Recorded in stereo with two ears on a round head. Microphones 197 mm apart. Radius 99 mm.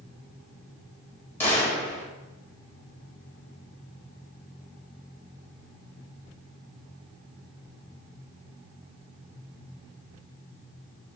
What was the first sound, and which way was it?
A gunshot, 10° left (ahead or behind).